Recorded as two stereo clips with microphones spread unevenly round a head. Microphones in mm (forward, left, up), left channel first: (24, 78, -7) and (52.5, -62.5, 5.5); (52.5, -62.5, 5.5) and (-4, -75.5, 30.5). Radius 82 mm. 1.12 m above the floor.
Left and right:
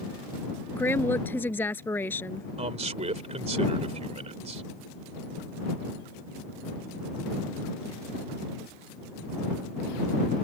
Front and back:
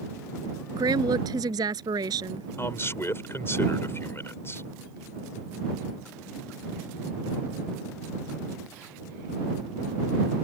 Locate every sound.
0.7 s a woman speaking: straight behind
2.6 s a man speaking: 35° right